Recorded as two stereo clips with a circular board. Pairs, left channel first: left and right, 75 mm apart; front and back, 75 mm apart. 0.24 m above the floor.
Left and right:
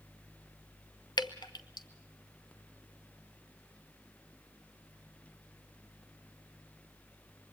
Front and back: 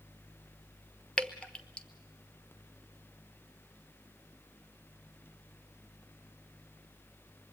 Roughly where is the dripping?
Left.